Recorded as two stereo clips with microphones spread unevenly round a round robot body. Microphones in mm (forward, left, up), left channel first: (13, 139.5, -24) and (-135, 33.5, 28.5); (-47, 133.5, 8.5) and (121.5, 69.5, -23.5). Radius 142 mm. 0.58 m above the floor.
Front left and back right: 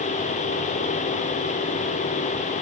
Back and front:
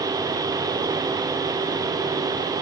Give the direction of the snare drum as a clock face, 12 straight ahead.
I don't hear a snare drum.